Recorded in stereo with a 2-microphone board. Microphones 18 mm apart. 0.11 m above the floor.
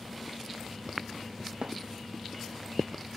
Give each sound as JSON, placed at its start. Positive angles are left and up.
{"t": 1.6, "sound": "a thud", "side_deg": -70}